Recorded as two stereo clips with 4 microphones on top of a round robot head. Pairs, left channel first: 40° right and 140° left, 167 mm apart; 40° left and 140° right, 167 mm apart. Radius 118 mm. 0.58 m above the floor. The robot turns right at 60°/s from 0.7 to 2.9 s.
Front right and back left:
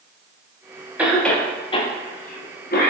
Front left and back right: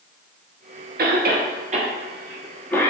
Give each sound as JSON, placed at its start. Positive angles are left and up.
{"t": 1.0, "sound": "a cough", "azimuth_deg": -140, "distance_m": 1.2}